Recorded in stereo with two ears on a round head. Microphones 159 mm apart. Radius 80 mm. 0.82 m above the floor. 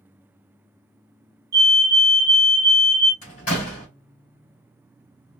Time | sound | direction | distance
1.5 | a fire alarm | 20° right (ahead or behind) | 1.3 m
3.2 | a door slam | 50° left (ahead or behind) | 2.5 m